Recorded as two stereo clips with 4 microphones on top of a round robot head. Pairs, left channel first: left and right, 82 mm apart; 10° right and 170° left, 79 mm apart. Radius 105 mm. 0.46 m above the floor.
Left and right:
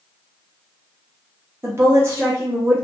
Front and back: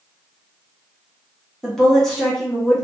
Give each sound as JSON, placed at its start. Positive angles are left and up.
{"t": 1.6, "sound": "a woman speaking", "azimuth_deg": -85, "distance_m": 0.9}